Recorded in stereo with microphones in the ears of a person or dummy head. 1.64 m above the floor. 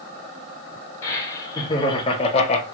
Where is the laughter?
20° left (ahead or behind), 1.9 m; by 2.6 s 45° left (ahead or behind), 0.9 m.